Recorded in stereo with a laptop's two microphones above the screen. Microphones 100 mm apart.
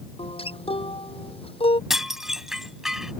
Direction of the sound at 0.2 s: 70° left (ahead or behind).